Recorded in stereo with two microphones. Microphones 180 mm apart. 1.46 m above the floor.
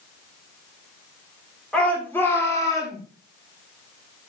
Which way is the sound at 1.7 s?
5° left (ahead or behind).